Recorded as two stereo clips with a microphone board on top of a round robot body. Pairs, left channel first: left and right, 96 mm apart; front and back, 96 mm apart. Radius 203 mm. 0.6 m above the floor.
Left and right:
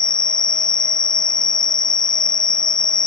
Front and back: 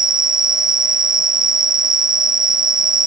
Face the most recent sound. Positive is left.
turn(degrees=135)